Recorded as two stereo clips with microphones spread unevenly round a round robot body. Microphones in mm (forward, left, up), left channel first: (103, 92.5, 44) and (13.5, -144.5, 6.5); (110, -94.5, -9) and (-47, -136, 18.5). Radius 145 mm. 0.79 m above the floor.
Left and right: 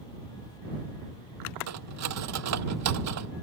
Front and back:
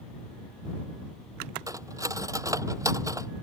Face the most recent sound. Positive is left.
turn(degrees=-95)